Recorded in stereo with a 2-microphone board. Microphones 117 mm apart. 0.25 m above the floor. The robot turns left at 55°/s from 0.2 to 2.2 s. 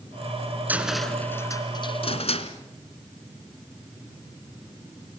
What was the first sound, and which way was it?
A cupboard door, 15° right (ahead or behind).